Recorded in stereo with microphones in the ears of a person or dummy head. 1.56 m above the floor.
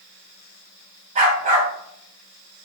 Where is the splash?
I don't hear a splash.